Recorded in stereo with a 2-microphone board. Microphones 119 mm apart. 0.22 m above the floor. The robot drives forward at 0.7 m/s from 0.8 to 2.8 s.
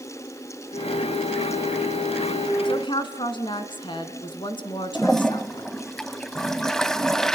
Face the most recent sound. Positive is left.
turn(degrees=5)  # may be behind; listen again after turning